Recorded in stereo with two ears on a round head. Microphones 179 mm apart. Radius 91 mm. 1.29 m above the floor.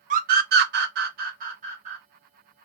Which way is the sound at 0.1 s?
40° right (ahead or behind).